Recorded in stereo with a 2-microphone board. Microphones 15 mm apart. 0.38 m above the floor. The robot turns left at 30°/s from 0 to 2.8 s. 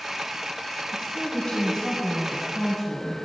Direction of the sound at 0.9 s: 70° left.